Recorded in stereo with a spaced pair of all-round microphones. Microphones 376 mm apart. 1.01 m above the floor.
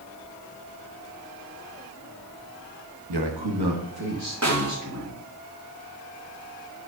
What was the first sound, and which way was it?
A man speaking, 75° right (ahead or behind).